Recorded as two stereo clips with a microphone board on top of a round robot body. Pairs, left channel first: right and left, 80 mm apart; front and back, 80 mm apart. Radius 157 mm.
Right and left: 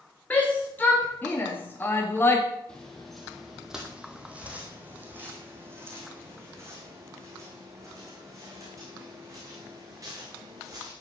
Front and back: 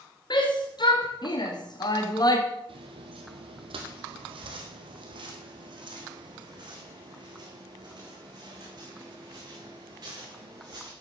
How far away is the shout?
About 3 m.